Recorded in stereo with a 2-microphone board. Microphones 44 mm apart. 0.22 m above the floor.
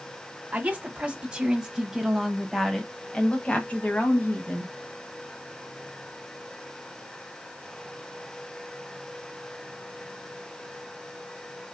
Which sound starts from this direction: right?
A woman speaking, at 0.5 s.